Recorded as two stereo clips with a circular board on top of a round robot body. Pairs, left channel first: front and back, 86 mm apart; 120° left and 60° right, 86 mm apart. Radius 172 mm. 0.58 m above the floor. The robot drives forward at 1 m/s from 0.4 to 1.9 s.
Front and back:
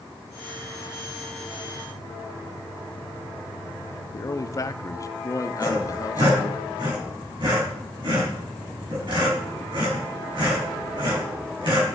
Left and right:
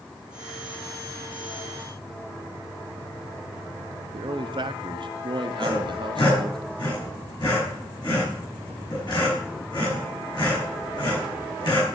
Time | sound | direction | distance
4.1 | a man speaking | 45° right | 1.0 m
5.6 | sawing | 155° left | 6.5 m